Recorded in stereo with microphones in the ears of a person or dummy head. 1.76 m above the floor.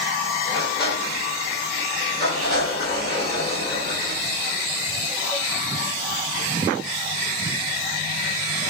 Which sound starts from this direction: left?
A sliding door, at 0.5 s.